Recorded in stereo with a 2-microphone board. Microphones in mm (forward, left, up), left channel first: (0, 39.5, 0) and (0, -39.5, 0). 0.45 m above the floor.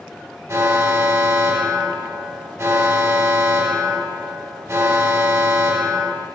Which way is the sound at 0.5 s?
35° right (ahead or behind).